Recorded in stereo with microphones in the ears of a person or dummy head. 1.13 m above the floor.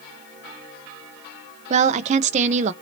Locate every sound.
1.7 s a woman speaking: 45° right (ahead or behind), 0.7 m